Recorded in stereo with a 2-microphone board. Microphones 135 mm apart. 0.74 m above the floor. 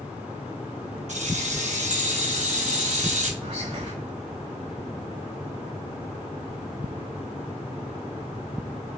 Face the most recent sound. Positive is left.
turn(degrees=-50)  # may be behind; listen again after turning